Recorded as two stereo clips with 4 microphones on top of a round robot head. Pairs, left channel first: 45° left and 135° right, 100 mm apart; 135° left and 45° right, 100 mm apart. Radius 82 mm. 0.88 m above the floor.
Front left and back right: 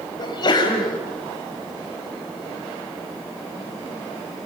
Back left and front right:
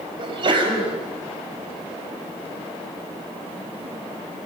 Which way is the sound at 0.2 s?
5° right.